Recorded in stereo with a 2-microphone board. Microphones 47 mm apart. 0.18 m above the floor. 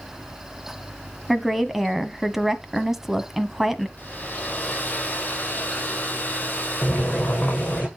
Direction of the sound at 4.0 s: 35° left (ahead or behind).